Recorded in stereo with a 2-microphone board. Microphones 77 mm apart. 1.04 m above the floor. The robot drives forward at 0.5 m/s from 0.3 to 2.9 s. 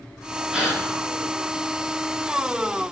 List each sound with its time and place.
0.5 s a gasp: 10° right (ahead or behind), 4 m